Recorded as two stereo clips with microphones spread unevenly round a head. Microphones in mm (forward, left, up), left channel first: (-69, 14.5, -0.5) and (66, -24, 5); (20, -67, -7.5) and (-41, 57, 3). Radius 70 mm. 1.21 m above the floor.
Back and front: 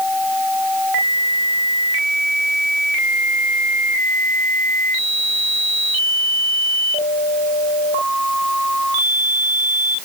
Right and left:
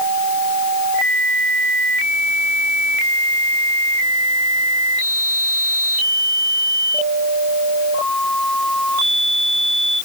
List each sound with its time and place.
Only background noise.